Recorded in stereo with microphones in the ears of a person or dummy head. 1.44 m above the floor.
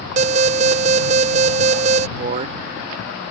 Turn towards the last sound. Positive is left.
turn(degrees=-45)  # may be behind; listen again after turning